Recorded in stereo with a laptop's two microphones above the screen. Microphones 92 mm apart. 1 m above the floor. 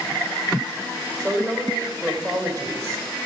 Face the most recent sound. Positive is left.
turn(degrees=-35)  # may be behind; listen again after turning